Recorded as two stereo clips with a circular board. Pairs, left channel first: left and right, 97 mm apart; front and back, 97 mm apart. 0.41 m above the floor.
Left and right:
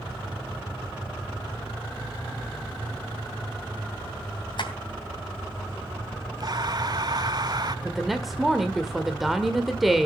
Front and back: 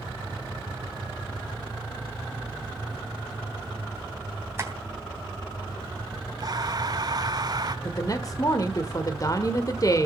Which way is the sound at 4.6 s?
120° left.